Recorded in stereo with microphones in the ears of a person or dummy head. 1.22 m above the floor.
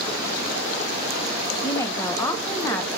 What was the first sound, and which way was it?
A woman speaking, 10° left (ahead or behind).